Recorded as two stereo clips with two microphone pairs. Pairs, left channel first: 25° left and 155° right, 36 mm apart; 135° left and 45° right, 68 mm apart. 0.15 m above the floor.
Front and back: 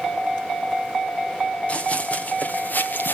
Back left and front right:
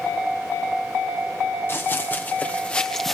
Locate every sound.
1.7 s running footsteps: 80° left, 2.5 m; by 3.1 s 45° left, 1.3 m